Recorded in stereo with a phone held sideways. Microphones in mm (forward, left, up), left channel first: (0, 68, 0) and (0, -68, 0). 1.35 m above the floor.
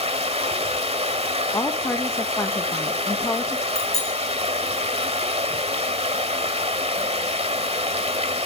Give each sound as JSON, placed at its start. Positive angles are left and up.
{"t": 0.0, "sound": "running water", "side_deg": -50, "distance_m": 1.6}
{"t": 1.5, "sound": "a woman speaking", "side_deg": 20, "distance_m": 1.4}
{"t": 3.8, "sound": "a bicycle bell", "side_deg": 55, "distance_m": 8.0}